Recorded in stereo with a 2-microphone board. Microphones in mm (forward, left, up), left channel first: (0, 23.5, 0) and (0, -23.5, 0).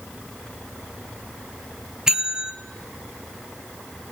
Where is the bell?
15° right (ahead or behind), 0.7 m.